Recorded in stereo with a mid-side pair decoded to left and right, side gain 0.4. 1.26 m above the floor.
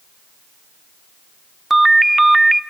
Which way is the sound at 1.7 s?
15° right.